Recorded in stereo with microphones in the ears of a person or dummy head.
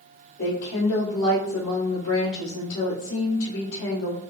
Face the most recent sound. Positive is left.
turn(degrees=85)